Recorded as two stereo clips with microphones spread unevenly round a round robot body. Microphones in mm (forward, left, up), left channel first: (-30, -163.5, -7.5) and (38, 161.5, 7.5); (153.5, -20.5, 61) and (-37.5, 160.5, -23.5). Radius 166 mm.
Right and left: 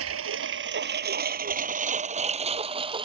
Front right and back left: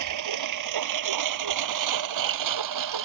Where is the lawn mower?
130° left; by 3.0 s 155° left.